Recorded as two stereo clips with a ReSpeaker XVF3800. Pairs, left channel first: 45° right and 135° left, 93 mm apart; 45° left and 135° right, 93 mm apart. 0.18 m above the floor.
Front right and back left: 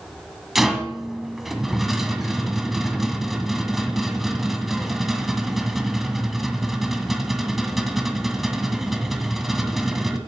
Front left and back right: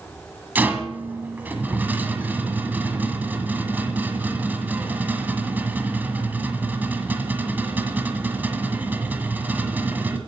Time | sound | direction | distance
0.6 | a rattle | 140° right | 1.6 m